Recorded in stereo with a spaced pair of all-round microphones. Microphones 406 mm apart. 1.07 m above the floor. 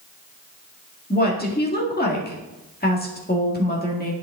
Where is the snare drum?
I don't hear a snare drum.